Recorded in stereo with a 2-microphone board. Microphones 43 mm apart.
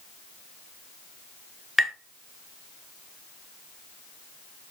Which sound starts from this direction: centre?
Tapping, at 1.8 s.